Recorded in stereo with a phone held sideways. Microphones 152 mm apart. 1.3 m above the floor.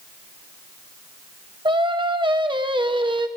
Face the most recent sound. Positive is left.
turn(degrees=-30)  # may be behind; listen again after turning